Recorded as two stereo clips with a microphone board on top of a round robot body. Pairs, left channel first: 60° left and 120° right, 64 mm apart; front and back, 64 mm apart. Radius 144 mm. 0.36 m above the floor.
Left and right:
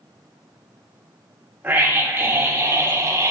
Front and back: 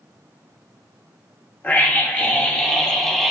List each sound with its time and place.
1.6 s a scream: 60° right, 3 m; by 3.3 s 85° right, 2.5 m